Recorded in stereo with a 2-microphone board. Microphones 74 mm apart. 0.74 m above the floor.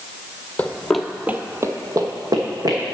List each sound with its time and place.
0.6 s running footsteps: 20° left (ahead or behind), 0.9 m; by 2.9 s 55° right (ahead or behind), 1.9 m